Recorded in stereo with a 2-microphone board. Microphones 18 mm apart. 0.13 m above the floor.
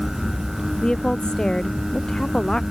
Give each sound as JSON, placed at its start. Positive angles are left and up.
{"t": 0.8, "sound": "a woman speaking", "side_deg": 50}